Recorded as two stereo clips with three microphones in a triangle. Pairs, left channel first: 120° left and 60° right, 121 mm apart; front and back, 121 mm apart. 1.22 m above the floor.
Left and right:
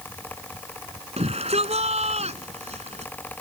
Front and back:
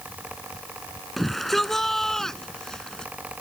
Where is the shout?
90° right; by 3.1 s 85° right.